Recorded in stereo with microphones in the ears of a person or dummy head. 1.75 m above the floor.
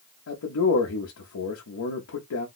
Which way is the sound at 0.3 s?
70° left (ahead or behind).